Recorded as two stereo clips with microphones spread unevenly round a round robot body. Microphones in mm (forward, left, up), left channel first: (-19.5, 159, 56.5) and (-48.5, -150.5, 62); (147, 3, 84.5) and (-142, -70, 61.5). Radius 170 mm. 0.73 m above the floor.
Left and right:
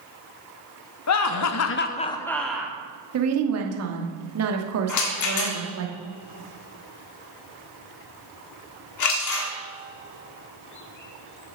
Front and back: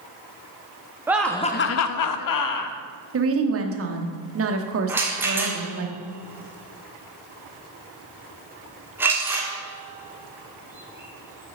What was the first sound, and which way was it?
Laughter, 115° left.